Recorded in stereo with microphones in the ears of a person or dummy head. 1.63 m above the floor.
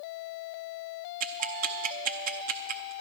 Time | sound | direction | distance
1.2 | ticking | 45° right (ahead or behind) | 0.7 m